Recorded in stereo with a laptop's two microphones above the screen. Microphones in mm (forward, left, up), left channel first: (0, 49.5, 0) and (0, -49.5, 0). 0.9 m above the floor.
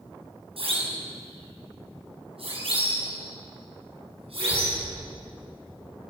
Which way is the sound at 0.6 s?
70° right (ahead or behind).